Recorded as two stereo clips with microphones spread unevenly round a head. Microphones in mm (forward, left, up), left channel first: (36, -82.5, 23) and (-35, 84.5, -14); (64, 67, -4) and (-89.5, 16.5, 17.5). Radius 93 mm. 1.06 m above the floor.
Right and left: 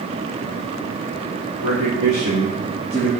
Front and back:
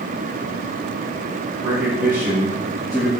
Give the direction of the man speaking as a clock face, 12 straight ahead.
8 o'clock.